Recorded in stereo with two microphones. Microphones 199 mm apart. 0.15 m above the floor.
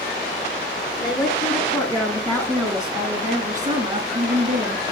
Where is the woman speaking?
20° left (ahead or behind), 2 m; by 4.8 s 35° right (ahead or behind), 1.9 m.